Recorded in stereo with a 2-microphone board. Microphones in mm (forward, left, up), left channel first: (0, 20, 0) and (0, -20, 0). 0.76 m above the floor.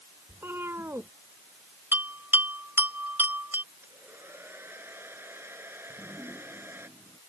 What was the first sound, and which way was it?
A cat meowing, 80° right.